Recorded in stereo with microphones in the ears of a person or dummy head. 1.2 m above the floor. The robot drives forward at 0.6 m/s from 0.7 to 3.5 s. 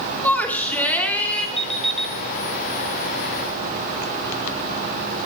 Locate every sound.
0.2 s a shout: 10° left (ahead or behind), 3 m
1.6 s an alarm clock: 5° left (ahead or behind), 3 m